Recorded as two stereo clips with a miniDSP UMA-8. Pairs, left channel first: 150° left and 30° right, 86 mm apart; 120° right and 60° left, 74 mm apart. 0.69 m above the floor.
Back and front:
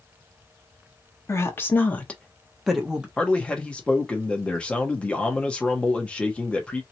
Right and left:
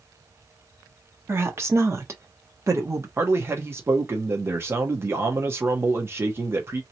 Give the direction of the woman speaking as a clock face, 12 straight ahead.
9 o'clock.